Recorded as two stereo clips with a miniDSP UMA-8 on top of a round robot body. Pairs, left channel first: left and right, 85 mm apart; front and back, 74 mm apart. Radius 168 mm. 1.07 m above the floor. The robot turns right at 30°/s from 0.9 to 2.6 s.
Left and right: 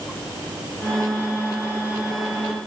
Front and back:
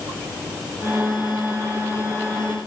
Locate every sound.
Only background noise.